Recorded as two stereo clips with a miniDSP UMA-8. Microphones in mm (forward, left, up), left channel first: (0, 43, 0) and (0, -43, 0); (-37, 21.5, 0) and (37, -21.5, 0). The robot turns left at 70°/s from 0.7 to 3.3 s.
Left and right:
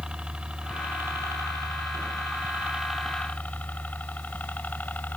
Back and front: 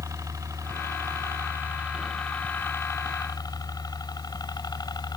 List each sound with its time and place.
0.0 s a helicopter: 15° right; by 5.2 s 155° left